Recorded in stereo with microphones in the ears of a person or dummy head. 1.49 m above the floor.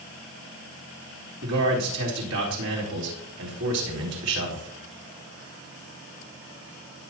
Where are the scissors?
I don't hear scissors.